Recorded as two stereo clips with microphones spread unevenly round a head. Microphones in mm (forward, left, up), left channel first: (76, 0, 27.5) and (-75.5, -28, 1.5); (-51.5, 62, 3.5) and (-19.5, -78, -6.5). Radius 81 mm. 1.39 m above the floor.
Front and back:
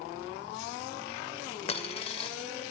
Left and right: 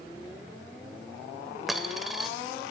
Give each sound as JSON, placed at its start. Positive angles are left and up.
{"t": 1.7, "sound": "a dropped coin", "azimuth_deg": 15, "distance_m": 1.4}